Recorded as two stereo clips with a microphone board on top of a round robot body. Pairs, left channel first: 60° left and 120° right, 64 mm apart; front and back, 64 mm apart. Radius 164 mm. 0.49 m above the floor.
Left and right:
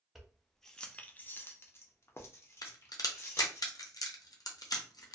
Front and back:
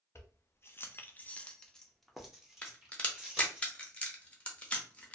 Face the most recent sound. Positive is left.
turn(degrees=70)